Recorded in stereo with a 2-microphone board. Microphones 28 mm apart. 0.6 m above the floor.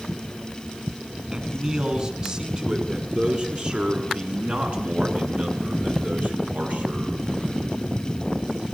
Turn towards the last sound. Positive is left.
turn(degrees=-65)  # may be behind; listen again after turning